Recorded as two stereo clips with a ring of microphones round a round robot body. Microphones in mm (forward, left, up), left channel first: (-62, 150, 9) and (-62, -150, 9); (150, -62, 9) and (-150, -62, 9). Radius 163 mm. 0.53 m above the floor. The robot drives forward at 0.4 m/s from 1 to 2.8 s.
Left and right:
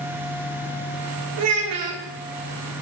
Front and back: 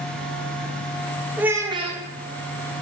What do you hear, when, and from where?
1.4 s a child speaking: 95° right, 0.8 m; by 2.0 s 120° right, 0.9 m